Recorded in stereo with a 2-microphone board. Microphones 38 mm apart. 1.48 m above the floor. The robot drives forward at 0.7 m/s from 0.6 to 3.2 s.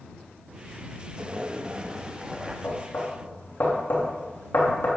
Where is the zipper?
25° right (ahead or behind), 0.8 m; by 2.5 s 15° right (ahead or behind), 1.5 m.